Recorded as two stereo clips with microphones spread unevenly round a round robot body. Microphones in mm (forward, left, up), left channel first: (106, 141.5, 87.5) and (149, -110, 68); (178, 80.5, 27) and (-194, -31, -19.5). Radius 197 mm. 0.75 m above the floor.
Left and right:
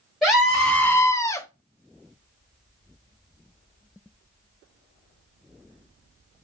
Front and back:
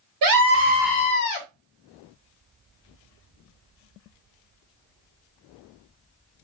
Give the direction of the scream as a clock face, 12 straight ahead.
6 o'clock.